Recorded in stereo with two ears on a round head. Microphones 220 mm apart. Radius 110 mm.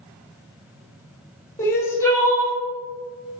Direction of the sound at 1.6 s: 10° left (ahead or behind).